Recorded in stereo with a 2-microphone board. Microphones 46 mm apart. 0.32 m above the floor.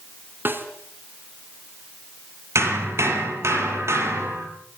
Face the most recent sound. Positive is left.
turn(degrees=-80)